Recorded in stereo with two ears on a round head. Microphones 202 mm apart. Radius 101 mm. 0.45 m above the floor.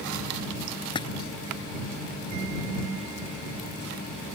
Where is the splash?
20° left (ahead or behind).